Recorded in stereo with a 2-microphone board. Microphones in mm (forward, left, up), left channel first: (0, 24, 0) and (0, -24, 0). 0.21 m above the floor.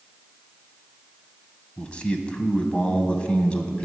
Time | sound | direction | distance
1.8 | a man speaking | 25° left (ahead or behind) | 1.2 m